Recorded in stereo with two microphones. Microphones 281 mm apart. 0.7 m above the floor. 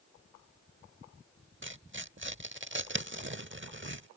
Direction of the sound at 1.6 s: 45° right (ahead or behind).